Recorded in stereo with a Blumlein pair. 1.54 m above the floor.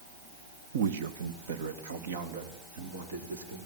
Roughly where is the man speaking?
Ahead right.